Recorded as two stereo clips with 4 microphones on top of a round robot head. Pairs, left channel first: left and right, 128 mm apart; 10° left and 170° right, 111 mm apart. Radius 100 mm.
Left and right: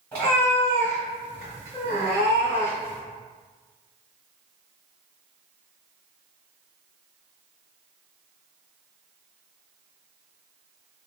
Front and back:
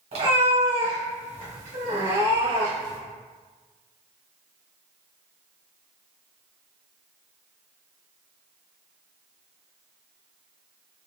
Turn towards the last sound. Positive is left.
turn(degrees=-140)